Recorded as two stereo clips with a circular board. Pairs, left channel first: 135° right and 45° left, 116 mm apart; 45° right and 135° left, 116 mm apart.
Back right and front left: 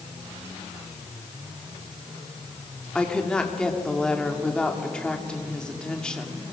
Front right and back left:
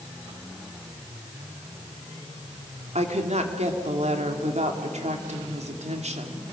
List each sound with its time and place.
3.0 s a woman speaking: 140° left, 2.5 m